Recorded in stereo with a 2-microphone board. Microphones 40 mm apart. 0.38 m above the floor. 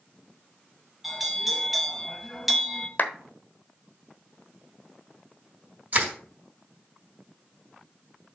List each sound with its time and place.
1.0 s a bell: 5° right (ahead or behind), 1.1 m
3.0 s a clap: 45° left (ahead or behind), 1.2 m
5.9 s crushing: 50° right (ahead or behind), 3.5 m